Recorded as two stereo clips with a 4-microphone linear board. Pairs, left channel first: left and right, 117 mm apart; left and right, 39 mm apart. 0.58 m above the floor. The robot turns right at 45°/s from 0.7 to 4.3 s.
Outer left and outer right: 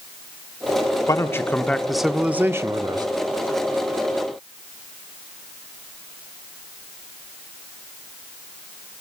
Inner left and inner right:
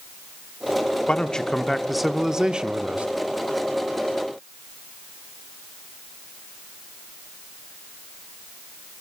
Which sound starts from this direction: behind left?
A man speaking, at 1.1 s.